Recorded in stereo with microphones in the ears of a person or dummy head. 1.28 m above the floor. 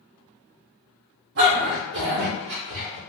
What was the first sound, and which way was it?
A dog barking, 55° right (ahead or behind).